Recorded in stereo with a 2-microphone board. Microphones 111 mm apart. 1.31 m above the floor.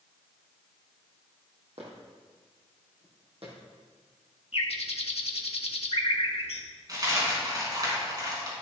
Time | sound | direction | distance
1.8 | footsteps | 65° right (ahead or behind) | 3.5 m
4.5 | a bird | 65° left (ahead or behind) | 1.2 m
6.9 | a dropped coin | 35° right (ahead or behind) | 4 m